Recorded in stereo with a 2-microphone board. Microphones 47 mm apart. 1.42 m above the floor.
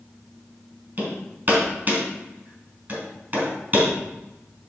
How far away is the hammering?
About 3.5 m.